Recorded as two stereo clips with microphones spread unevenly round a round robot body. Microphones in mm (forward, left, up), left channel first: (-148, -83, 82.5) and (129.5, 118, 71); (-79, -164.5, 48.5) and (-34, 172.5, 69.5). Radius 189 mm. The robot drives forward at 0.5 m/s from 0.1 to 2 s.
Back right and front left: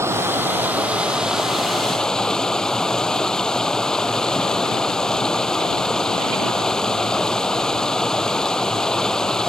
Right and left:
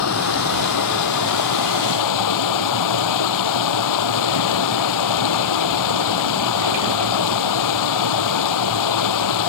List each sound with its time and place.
0.0 s running water: 45° right; by 9.5 s 55° right